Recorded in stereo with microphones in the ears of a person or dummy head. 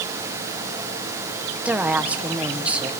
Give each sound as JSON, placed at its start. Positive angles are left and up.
{"t": 1.6, "sound": "a woman speaking", "side_deg": -10, "distance_m": 1.1}